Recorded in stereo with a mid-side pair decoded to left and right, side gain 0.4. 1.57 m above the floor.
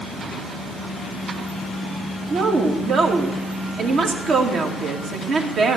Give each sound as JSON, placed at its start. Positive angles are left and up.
{"t": 2.3, "sound": "a woman speaking", "azimuth_deg": -65, "distance_m": 2.5}